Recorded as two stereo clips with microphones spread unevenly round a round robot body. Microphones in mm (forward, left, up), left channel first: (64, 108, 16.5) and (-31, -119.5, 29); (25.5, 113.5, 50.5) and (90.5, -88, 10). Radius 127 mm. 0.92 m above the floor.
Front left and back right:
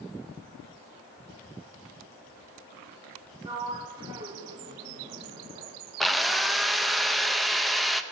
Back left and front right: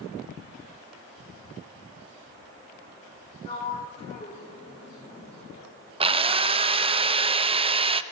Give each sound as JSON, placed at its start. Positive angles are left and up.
{"t": 3.5, "sound": "a sliding door", "azimuth_deg": 175, "distance_m": 1.0}
{"t": 6.0, "sound": "a drill", "azimuth_deg": -20, "distance_m": 0.5}